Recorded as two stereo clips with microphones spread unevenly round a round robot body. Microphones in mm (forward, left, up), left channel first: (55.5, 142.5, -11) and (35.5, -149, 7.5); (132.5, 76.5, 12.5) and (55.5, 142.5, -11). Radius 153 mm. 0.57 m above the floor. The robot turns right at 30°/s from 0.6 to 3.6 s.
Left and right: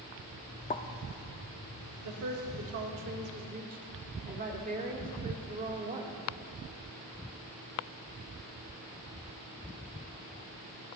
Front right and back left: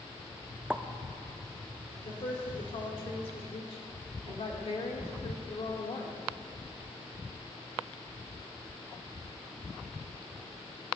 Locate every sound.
0.7 s a pop: 105° left, 0.6 m; by 0.8 s 110° left, 0.6 m
2.0 s a woman speaking: 85° right, 1.7 m; by 6.1 s 35° right, 1.7 m